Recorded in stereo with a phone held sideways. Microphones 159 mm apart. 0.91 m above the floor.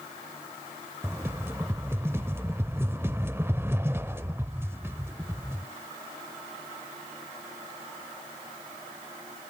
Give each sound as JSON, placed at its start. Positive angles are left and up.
{"t": 1.0, "sound": "a rattle", "side_deg": -15, "distance_m": 0.7}